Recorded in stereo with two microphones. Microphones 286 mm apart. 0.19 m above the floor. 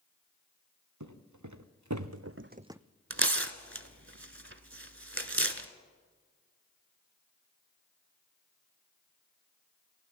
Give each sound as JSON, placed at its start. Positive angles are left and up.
{"t": 1.0, "sound": "footsteps", "side_deg": -85, "distance_m": 2.0}
{"t": 3.1, "sound": "tearing paper", "side_deg": -45, "distance_m": 1.0}